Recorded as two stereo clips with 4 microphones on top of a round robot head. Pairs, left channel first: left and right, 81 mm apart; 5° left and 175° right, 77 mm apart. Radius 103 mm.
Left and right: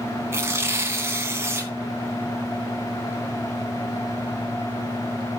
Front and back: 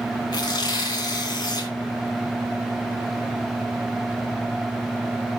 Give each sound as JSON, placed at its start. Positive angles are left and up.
{"t": 0.3, "sound": "tearing paper", "azimuth_deg": -30, "distance_m": 3.0}